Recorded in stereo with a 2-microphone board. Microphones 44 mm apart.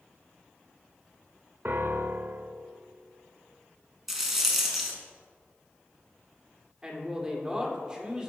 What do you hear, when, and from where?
1.6 s a piano: 50° right (ahead or behind), 0.5 m
4.1 s a rattle: 10° right (ahead or behind), 1.3 m
6.8 s a man speaking: 20° right (ahead or behind), 1.3 m